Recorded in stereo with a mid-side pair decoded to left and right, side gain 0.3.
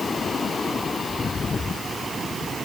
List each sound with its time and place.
Only background noise.